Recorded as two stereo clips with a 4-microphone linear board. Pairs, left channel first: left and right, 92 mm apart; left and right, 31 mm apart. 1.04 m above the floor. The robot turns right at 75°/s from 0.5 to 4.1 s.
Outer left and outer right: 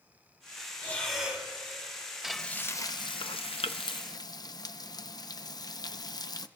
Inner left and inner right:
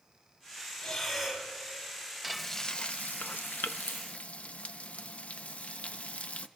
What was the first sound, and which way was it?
Breathing, 155° left.